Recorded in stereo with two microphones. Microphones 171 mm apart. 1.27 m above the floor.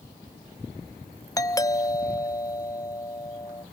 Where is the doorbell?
20° left (ahead or behind), 0.7 m.